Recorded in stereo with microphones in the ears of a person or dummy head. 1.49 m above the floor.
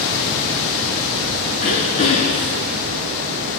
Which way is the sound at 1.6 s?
25° left (ahead or behind).